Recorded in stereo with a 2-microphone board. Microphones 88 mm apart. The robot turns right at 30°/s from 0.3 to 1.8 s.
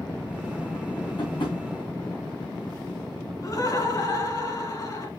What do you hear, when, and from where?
1.2 s tapping: 50° left (ahead or behind), 3.5 m; by 1.6 s 65° left (ahead or behind), 3.5 m
3.4 s laughter: 40° left (ahead or behind), 1.9 m